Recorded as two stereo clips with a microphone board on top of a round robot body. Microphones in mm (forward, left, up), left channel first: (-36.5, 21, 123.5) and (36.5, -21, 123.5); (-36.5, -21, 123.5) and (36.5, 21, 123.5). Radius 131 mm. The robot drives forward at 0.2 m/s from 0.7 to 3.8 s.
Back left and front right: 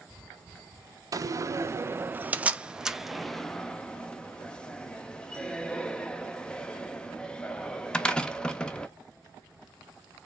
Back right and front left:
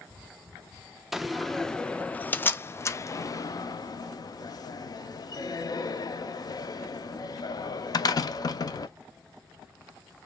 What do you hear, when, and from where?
1.1 s a door slam: 55° right, 0.6 m; by 8.9 s 135° right, 0.6 m